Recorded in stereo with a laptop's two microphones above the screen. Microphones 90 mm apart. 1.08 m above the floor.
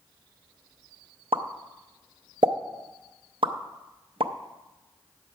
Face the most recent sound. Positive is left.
turn(degrees=-75)  # may be behind; listen again after turning